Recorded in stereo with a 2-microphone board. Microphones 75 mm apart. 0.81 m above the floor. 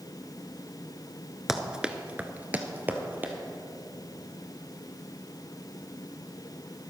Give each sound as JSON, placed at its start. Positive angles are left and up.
{"t": 1.5, "sound": "running footsteps", "side_deg": -5, "distance_m": 0.8}